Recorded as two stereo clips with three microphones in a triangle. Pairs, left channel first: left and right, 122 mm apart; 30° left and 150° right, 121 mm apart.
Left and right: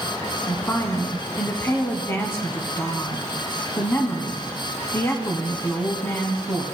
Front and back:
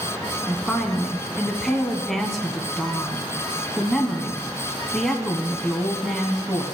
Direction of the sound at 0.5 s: 115° left.